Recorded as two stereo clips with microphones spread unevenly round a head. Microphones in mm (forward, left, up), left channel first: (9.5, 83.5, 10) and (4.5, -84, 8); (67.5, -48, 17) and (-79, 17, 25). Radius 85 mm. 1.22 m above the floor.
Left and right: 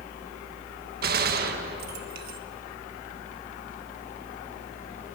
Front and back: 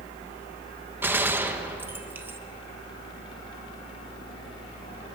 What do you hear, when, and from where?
0.0 s a fan: 40° left, 1.4 m
1.0 s a gunshot: 125° right, 1.5 m